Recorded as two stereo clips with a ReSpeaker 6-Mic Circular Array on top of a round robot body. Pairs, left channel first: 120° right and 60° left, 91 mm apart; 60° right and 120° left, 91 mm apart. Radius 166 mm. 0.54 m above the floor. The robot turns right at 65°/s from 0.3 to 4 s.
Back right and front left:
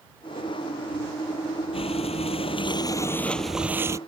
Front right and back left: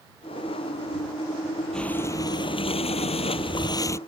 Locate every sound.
1.7 s breathing: 145° right; by 4.0 s 5° left